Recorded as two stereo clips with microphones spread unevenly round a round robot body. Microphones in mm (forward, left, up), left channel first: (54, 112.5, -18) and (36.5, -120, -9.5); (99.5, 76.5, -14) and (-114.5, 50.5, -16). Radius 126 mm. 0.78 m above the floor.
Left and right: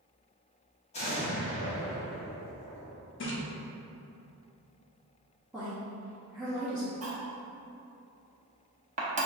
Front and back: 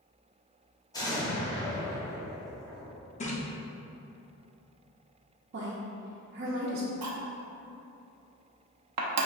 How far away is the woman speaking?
About 0.6 m.